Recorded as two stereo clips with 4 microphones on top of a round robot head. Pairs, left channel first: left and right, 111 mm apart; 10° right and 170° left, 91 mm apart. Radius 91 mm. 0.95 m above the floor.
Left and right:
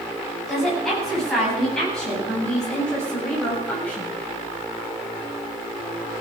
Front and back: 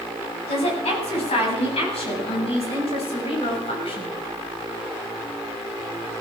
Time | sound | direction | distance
0.5 | a woman speaking | 5° left | 9 m